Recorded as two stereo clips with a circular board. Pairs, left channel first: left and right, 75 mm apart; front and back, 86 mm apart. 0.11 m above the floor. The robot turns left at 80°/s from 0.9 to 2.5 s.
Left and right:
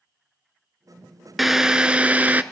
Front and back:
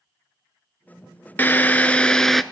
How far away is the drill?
About 0.5 m.